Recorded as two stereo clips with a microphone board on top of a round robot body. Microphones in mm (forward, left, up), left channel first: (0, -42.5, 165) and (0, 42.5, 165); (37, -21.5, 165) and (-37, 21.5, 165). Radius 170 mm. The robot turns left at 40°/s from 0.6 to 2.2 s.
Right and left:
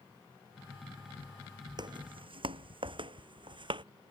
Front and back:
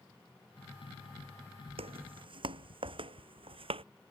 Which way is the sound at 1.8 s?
135° left.